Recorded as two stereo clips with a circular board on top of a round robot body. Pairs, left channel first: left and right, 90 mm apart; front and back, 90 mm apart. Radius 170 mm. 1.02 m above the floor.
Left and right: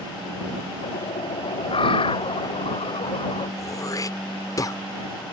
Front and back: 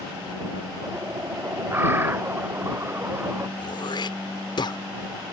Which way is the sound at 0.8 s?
115° left.